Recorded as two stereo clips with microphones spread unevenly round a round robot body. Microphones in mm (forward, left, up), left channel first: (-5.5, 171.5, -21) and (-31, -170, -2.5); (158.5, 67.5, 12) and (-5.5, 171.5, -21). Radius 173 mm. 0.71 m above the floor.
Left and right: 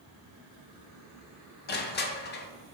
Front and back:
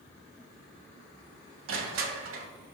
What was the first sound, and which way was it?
Crushing, 150° left.